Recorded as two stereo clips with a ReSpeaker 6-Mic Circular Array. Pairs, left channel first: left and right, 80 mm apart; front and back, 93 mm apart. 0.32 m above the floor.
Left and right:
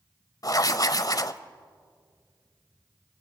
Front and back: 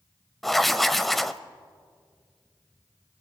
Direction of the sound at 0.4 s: 90° left.